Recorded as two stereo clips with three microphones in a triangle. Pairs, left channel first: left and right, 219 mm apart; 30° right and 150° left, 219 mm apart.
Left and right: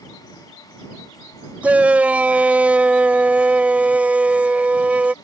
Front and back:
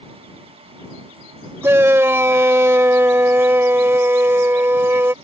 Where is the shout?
160° right.